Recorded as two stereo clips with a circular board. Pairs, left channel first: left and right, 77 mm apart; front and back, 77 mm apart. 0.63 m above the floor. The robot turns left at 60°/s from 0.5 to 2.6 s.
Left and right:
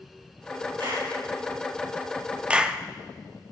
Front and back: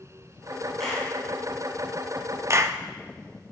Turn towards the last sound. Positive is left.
turn(degrees=-165)